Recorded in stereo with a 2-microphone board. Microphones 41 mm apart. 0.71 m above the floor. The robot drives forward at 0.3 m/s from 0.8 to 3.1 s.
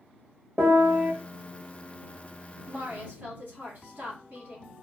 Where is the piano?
40° right (ahead or behind), 1.3 m.